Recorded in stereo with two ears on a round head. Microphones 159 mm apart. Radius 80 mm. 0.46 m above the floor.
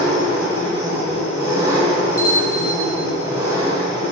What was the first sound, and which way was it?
An engine running, 15° right (ahead or behind).